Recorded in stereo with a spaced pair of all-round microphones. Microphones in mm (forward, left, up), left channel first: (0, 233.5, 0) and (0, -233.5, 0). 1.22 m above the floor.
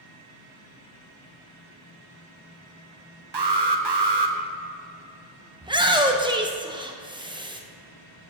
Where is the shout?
10° right (ahead or behind), 0.7 m.